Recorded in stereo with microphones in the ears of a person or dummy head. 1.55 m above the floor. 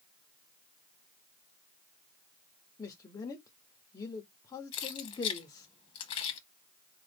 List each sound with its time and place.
2.8 s a man speaking: 15° left (ahead or behind), 0.8 m
4.7 s keys jangling: 35° left (ahead or behind), 0.8 m